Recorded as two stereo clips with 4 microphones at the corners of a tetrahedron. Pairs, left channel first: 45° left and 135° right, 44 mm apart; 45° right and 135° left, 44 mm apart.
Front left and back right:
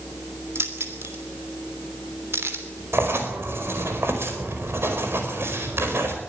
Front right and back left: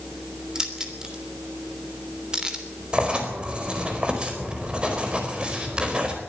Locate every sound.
0.6 s keys jangling: 150° right, 3 m
2.9 s writing: 160° right, 4.5 m